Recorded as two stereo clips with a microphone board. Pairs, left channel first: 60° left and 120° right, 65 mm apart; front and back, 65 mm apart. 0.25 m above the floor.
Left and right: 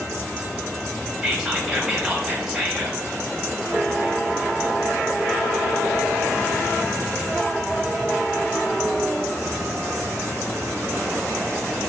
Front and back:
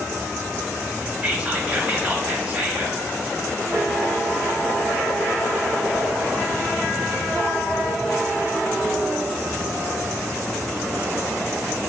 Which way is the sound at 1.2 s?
165° left.